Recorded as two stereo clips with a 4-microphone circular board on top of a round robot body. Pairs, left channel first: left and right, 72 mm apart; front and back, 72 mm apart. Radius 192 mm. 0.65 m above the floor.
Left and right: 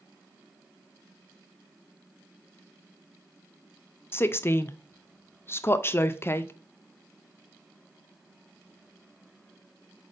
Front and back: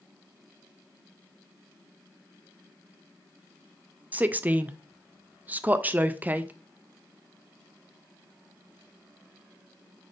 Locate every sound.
4.1 s a woman speaking: 125° left, 0.5 m